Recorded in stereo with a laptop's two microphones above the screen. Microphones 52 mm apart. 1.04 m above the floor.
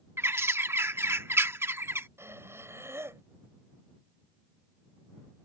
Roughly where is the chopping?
I don't hear chopping.